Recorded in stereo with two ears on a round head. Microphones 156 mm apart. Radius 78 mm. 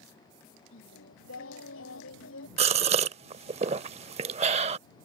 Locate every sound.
0.7 s singing: 85° left
2.6 s a gasp: 35° right (ahead or behind)